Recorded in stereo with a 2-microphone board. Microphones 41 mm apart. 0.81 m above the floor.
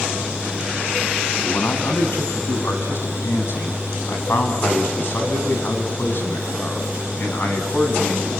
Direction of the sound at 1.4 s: 80° left.